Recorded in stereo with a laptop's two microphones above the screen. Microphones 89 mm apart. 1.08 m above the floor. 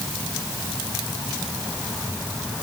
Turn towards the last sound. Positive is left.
No sound to turn to.